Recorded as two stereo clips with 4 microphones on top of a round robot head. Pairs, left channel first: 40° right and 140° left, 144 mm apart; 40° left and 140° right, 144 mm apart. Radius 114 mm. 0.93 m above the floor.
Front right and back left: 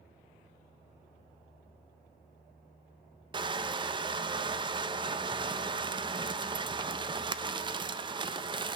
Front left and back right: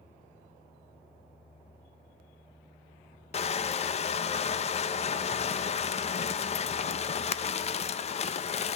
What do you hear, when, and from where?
3.3 s crushing: 85° left, 0.7 m